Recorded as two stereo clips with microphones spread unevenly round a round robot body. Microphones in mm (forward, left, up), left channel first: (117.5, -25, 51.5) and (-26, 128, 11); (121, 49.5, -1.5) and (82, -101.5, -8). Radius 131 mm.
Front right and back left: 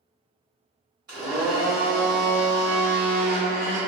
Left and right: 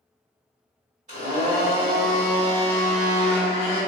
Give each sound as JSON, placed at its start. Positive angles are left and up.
{"t": 1.1, "sound": "a blender", "azimuth_deg": -160, "distance_m": 1.9}